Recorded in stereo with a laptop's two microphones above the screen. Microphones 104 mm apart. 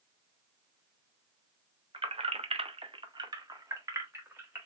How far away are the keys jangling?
About 0.6 m.